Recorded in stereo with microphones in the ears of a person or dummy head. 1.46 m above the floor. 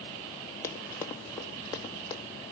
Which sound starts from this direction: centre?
Running footsteps, at 0.6 s.